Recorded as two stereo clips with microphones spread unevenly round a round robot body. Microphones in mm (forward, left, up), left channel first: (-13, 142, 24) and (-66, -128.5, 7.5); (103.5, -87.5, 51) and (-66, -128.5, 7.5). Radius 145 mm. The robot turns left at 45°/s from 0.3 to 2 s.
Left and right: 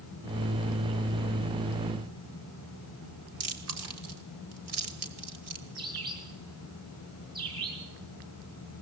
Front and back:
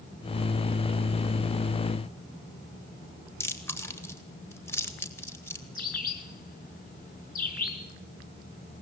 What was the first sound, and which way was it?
Chewing, 65° right.